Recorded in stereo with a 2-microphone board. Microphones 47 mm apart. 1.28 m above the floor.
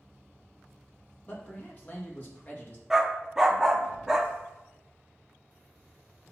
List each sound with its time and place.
1.3 s a man speaking: 35° left (ahead or behind), 2 m
2.9 s a dog barking: 10° right (ahead or behind), 0.8 m